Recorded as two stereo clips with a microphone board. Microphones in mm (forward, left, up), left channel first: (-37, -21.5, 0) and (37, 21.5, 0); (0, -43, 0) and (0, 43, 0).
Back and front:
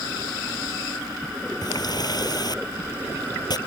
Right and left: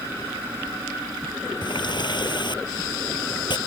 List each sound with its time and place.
1.6 s a running tap: 115° right